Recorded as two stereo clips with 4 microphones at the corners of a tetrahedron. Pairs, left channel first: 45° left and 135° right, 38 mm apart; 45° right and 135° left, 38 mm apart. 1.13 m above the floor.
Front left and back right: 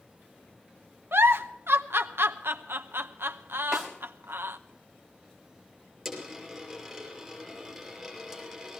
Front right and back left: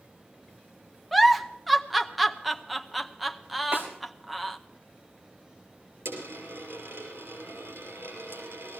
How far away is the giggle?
About 0.7 m.